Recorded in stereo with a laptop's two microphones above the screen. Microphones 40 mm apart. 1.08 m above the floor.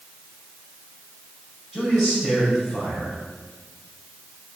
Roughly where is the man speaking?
Centre.